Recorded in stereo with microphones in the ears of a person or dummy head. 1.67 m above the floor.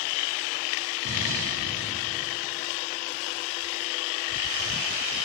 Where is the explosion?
85° right, 9 m.